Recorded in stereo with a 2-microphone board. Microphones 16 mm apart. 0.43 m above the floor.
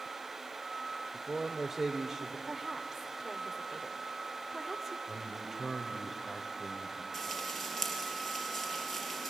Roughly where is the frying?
Centre.